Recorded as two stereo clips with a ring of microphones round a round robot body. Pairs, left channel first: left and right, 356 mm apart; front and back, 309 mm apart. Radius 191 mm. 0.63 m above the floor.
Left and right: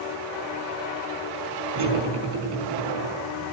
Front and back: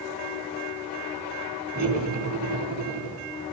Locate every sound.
1.8 s cutlery clinking: 115° right, 4.5 m